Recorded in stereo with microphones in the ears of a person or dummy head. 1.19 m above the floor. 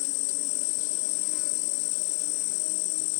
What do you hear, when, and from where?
0.0 s an insect: 75° left (ahead or behind)